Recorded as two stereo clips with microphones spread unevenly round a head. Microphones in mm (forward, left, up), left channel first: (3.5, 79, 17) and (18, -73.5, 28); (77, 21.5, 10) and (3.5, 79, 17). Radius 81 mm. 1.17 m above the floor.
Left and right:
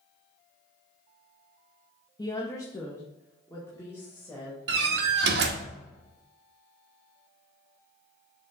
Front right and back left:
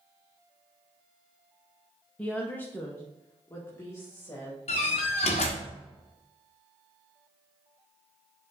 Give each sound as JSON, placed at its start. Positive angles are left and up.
{"t": 2.2, "sound": "a woman speaking", "azimuth_deg": 35, "distance_m": 0.9}
{"t": 4.7, "sound": "a door slam", "azimuth_deg": -80, "distance_m": 0.9}